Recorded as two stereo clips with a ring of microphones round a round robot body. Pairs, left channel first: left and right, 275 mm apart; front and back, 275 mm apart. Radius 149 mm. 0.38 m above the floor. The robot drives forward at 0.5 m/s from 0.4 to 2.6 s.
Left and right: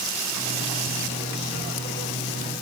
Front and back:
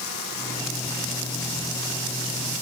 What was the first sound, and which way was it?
Only background noise.